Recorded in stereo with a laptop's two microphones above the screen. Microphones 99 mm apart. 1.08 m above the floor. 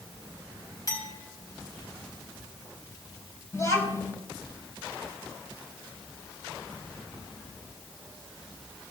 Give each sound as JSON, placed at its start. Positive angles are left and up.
{"t": 0.9, "sound": "a clink", "side_deg": 40, "distance_m": 4.5}
{"t": 3.5, "sound": "a child speaking", "side_deg": 35, "distance_m": 4.0}